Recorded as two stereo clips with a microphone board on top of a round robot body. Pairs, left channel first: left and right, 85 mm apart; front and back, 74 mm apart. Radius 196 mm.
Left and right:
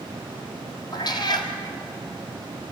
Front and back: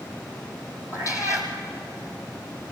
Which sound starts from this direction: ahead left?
A cat meowing, at 0.9 s.